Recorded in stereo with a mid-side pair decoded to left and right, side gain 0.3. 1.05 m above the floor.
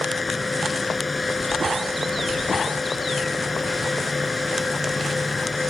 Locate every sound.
0.0 s a fan: 30° left